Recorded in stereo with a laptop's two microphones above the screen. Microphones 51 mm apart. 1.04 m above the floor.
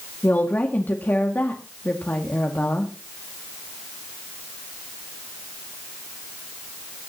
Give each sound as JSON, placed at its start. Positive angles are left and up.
{"t": 0.2, "sound": "a woman speaking", "side_deg": 40, "distance_m": 2.0}